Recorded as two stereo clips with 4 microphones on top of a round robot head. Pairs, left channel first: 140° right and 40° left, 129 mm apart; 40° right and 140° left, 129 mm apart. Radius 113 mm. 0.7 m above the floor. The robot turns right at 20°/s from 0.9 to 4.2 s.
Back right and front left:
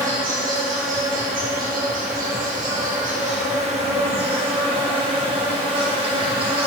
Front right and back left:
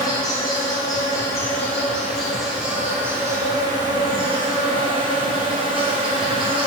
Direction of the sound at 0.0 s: 20° left.